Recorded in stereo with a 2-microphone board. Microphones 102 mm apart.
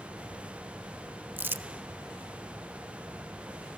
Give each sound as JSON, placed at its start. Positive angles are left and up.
{"t": 1.4, "sound": "crumpling", "side_deg": -20, "distance_m": 0.6}